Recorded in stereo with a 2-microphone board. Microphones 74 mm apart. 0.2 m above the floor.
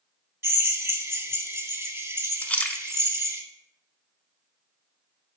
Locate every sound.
0.4 s a drill: 35° right (ahead or behind), 0.8 m
2.4 s a splash: 20° left (ahead or behind), 0.5 m